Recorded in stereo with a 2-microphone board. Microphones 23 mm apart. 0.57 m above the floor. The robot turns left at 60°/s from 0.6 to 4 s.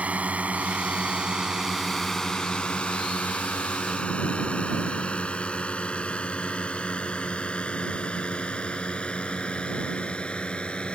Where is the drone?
75° right (ahead or behind); by 11.0 s 50° left (ahead or behind).